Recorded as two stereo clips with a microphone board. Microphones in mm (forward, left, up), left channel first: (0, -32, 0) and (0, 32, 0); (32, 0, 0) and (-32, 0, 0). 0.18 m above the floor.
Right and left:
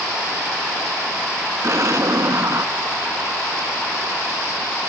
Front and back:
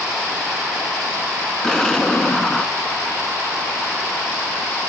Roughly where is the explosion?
Left.